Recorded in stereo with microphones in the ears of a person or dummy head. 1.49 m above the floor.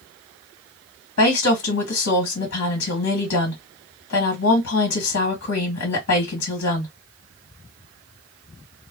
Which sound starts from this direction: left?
A woman speaking, at 1.2 s.